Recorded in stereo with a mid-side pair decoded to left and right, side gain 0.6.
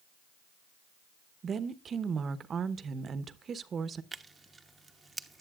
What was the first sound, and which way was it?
A woman speaking, 35° right.